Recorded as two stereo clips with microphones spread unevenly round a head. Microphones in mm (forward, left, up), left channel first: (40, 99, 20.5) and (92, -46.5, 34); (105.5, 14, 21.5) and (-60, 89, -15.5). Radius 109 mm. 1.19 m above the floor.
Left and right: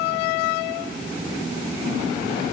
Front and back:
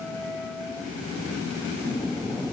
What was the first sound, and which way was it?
Only background noise.